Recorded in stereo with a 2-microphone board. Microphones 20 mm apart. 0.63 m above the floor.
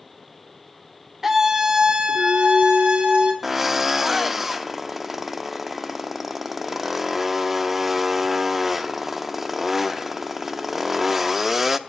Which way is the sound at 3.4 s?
10° right (ahead or behind).